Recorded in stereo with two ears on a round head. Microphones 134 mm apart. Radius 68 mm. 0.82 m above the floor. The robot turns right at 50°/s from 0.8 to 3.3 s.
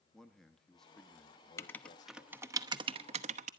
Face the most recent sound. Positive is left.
turn(degrees=-50)  # may be behind; listen again after turning